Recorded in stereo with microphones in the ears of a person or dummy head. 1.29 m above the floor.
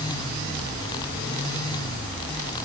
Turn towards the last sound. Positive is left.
No sound to turn to.